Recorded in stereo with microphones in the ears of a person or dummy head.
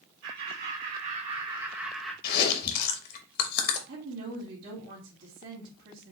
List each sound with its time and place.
0.2 s laughter: 55° right (ahead or behind), 2 m; by 2.1 s 10° left (ahead or behind), 1.1 m
2.2 s chewing: 55° left (ahead or behind), 0.9 m
3.9 s a woman speaking: 60° right (ahead or behind), 1.5 m